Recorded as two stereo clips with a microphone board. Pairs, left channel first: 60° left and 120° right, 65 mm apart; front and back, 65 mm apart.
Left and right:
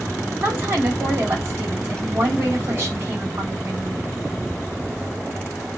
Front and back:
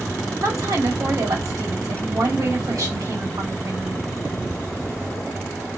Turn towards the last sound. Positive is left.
turn(degrees=-165)